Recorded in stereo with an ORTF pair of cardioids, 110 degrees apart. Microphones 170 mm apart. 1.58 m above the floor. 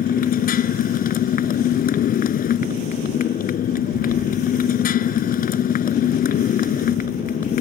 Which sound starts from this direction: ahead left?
A motorcycle, at 0.0 s.